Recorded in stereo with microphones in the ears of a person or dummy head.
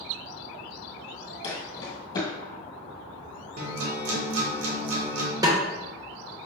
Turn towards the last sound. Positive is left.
turn(degrees=-20)  # may be behind; listen again after turning